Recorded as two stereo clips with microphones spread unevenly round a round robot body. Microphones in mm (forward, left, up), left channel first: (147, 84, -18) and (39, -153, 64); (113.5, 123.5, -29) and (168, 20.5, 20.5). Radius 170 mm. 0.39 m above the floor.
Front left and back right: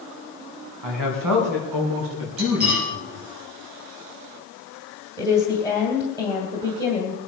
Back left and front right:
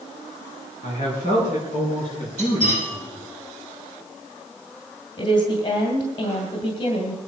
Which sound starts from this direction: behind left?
A woman speaking, at 5.2 s.